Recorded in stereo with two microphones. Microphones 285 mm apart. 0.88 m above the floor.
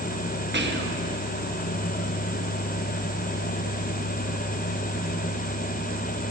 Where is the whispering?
40° right (ahead or behind), 1.3 m.